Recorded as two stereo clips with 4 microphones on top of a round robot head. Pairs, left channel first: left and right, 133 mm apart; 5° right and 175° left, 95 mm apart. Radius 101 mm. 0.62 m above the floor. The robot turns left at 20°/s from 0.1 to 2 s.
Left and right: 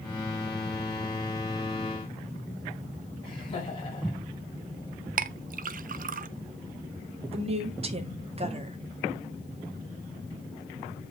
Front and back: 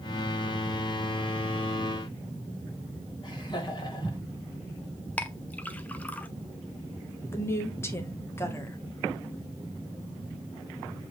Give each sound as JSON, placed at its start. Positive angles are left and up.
{"t": 3.2, "sound": "laughter", "azimuth_deg": 35, "distance_m": 3.5}
{"t": 5.2, "sound": "a clink", "azimuth_deg": -80, "distance_m": 0.5}
{"t": 7.3, "sound": "a woman speaking", "azimuth_deg": -65, "distance_m": 1.6}